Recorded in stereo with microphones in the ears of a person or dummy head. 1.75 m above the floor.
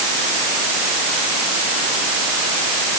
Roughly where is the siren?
I don't hear a siren.